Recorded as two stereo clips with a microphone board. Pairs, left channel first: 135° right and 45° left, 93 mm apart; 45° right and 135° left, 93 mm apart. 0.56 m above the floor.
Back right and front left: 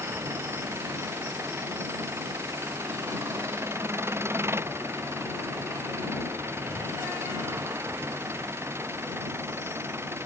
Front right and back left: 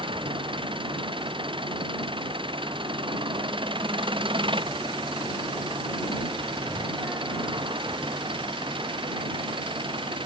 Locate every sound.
0.0 s an engine running: 110° left